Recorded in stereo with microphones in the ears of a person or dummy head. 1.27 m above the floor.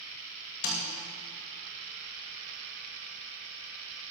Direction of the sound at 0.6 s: 50° left (ahead or behind).